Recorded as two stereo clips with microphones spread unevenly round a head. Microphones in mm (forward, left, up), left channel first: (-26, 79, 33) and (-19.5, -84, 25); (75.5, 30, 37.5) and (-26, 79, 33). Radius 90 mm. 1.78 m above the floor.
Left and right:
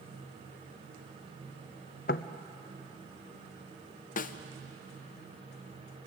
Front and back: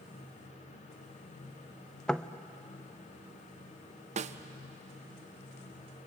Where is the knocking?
55° left, 0.6 m.